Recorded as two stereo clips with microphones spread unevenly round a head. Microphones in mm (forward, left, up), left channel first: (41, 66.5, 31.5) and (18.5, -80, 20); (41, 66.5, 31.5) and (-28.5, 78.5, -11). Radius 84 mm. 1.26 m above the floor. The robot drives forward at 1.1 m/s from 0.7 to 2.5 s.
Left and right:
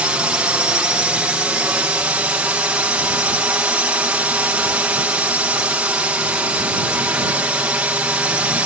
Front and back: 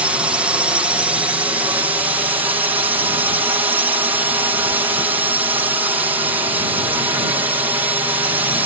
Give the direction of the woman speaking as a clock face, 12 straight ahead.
No woman speaking in this recording.